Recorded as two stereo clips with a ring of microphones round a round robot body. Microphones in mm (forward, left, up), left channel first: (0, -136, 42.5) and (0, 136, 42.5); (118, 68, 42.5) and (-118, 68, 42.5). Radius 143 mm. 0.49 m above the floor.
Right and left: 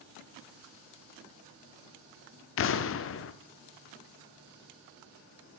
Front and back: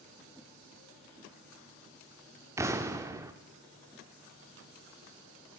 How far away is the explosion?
About 0.7 m.